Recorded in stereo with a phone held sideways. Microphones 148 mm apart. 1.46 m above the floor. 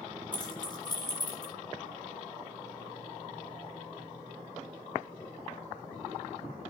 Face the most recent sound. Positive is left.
turn(degrees=30)  # may be behind; listen again after turning